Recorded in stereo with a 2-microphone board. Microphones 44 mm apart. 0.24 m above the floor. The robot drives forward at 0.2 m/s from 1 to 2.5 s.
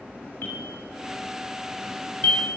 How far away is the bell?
About 2.5 m.